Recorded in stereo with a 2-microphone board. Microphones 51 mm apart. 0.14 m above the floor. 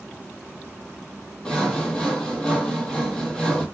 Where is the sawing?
15° left (ahead or behind), 0.7 m.